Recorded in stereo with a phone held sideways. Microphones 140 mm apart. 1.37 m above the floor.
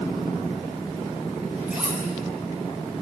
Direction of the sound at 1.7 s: 10° right (ahead or behind).